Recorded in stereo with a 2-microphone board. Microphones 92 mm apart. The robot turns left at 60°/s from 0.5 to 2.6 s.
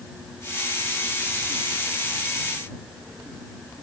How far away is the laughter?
I don't hear laughter.